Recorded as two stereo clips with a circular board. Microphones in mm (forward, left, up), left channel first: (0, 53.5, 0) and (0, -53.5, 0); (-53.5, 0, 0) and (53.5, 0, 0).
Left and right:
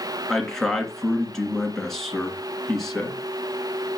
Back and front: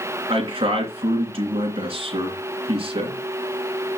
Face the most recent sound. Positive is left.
turn(degrees=5)